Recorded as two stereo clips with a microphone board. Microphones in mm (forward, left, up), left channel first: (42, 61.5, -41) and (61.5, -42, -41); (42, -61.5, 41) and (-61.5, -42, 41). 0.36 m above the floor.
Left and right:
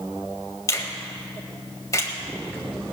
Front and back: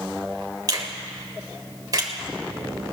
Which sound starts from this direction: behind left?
A finger snap, at 0.7 s.